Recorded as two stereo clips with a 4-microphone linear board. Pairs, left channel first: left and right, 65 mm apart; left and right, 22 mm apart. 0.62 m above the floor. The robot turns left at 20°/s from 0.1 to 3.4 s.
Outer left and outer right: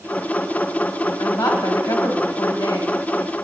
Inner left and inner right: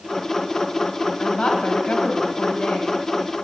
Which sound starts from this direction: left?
A woman speaking, at 1.2 s.